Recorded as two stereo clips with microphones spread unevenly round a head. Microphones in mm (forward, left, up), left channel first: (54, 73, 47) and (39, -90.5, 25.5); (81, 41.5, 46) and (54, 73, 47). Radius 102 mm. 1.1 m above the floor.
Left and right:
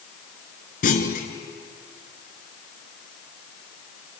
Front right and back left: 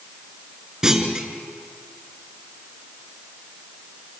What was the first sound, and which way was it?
A clunk, 55° left.